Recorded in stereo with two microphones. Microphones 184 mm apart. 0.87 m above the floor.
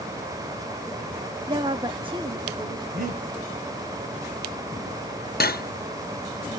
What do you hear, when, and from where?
1.5 s a woman speaking: 25° right (ahead or behind), 0.9 m
2.9 s breathing: 55° right (ahead or behind), 6.5 m
5.4 s cutlery clinking: 55° left (ahead or behind), 0.6 m